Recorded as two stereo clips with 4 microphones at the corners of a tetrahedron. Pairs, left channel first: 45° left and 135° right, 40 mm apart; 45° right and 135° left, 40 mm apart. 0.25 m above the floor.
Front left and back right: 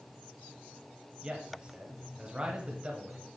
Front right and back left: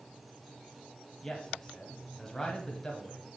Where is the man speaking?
105° right, 1.2 m.